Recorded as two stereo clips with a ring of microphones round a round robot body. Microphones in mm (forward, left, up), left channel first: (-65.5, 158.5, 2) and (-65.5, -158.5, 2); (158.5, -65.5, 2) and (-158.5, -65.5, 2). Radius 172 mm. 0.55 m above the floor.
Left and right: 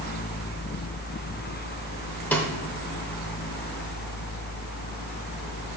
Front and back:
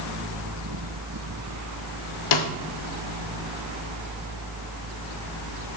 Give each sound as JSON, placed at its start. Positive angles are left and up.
{"t": 2.3, "sound": "a snare drum", "azimuth_deg": 5, "distance_m": 0.8}